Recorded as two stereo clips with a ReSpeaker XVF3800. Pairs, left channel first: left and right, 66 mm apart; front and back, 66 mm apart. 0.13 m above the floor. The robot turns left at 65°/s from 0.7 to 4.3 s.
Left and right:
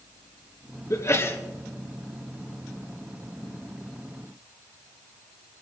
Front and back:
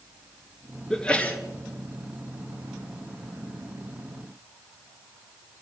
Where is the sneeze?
80° left, 1.9 m; by 1.4 s 50° left, 1.9 m.